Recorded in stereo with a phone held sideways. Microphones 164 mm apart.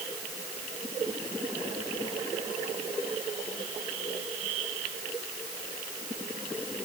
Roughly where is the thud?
I don't hear a thud.